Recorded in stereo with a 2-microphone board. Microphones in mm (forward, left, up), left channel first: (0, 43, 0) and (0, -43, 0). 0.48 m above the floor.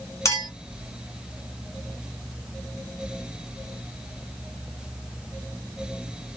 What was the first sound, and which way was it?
A clink, 35° left (ahead or behind).